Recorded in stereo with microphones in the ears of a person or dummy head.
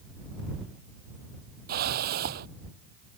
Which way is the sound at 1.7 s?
50° right (ahead or behind).